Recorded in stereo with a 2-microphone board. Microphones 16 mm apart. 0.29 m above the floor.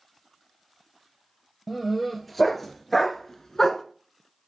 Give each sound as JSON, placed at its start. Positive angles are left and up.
{"t": 1.7, "sound": "a dog barking", "side_deg": 0, "distance_m": 1.9}